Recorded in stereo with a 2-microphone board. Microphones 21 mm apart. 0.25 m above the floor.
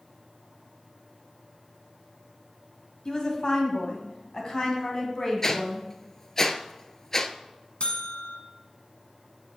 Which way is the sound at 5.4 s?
25° left (ahead or behind).